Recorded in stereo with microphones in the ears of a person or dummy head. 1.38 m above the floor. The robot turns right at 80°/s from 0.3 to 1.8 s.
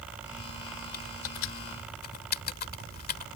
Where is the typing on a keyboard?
55° left (ahead or behind); by 3.3 s 50° left (ahead or behind).